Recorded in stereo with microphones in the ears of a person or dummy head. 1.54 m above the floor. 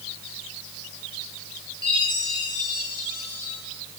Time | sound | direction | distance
1.8 | a chime | 25° left (ahead or behind) | 6.5 m